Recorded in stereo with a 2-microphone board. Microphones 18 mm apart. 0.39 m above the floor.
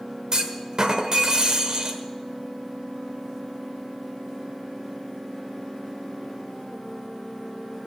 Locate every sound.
0.3 s a clunk: 40° right (ahead or behind), 1.3 m